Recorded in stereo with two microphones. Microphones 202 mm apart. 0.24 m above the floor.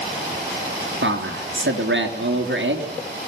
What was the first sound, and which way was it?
A man speaking, 70° right (ahead or behind).